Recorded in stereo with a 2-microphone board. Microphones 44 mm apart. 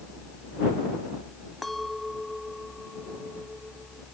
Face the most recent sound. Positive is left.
turn(degrees=5)  # may be behind; listen again after turning